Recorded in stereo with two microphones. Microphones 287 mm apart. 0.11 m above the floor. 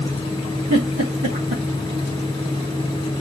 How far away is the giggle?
About 3.5 m.